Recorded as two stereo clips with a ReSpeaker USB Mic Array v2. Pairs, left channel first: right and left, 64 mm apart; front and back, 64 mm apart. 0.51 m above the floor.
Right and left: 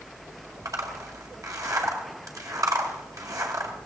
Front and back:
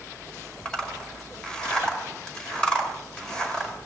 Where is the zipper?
75° left, 2.0 m.